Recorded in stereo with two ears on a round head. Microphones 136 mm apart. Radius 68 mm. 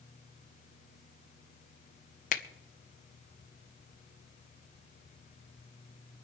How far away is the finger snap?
About 0.9 m.